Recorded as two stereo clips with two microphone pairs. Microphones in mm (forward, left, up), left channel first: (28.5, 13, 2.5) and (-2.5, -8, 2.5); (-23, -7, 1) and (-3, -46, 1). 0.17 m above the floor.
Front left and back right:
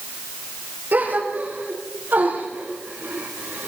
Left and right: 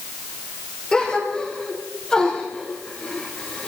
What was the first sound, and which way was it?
A gasp, 170° right.